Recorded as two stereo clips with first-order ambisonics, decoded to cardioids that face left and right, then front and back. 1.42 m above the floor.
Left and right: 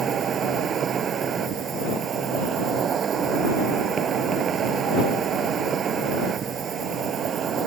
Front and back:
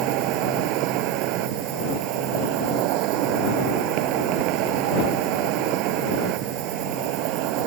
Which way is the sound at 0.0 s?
155° right.